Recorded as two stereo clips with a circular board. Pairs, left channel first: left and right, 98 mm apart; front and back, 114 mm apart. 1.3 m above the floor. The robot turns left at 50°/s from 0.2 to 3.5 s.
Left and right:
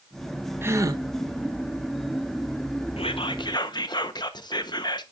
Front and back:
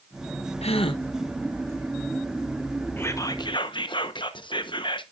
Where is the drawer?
No drawer in this recording.